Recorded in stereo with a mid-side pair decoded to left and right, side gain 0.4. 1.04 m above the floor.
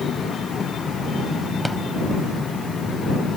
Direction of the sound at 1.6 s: 10° right.